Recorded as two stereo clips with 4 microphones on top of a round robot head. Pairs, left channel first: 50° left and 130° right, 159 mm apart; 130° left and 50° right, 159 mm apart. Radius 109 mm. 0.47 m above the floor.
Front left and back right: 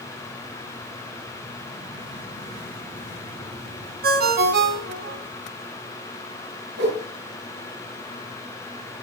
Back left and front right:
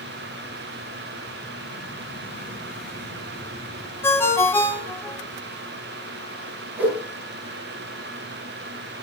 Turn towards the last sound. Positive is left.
turn(degrees=-130)